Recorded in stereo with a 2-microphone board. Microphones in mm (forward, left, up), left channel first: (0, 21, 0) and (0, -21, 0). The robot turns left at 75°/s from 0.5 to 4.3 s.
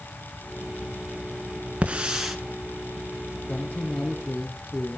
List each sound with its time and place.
1.8 s a hiss: 135° right, 2 m; by 2.4 s 175° right, 2 m
3.5 s a man speaking: 55° left, 7 m; by 5.0 s 5° right, 7 m